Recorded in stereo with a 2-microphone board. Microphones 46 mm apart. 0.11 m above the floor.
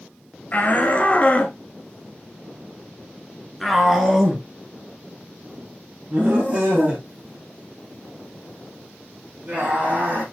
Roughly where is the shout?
Left.